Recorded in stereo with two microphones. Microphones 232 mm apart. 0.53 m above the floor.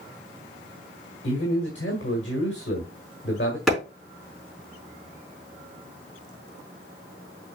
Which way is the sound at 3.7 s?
Centre (ahead or behind).